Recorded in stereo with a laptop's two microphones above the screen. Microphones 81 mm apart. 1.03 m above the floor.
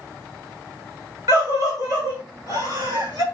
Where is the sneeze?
No sneeze in this recording.